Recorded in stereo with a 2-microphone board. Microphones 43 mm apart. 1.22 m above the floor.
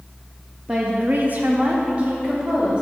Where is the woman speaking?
20° right (ahead or behind), 0.7 m; by 2.8 s 25° right (ahead or behind), 2 m.